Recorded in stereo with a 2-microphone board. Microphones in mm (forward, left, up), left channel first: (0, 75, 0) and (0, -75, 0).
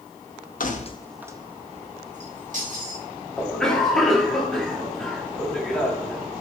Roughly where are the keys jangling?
Left.